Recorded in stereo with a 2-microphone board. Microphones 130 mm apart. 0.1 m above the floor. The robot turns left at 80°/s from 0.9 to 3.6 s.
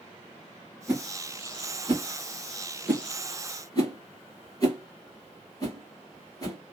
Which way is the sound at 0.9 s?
15° right (ahead or behind).